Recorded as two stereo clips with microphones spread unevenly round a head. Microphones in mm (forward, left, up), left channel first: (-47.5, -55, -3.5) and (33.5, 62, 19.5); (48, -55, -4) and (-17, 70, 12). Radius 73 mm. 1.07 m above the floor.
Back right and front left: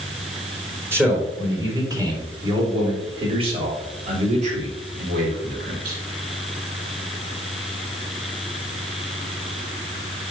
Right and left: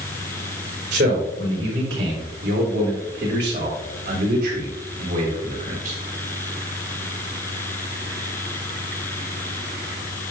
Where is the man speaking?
130° left, 3.5 m; by 6.0 s 80° left, 3 m.